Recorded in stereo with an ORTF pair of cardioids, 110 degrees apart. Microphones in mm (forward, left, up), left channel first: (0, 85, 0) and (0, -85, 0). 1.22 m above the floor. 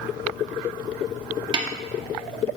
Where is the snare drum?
25° right, 1.6 m.